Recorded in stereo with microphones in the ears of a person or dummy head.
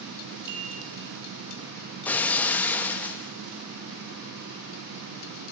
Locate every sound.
0.5 s a chime: 50° right (ahead or behind), 4 m
2.0 s breaking glass: 10° left (ahead or behind), 1.3 m